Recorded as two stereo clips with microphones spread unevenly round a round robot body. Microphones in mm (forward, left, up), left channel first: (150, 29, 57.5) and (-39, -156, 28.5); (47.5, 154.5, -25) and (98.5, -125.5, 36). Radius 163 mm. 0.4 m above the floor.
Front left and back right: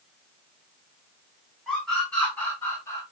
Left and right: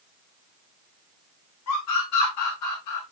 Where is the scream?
135° left, 4.5 m; by 3.0 s 125° left, 5.5 m.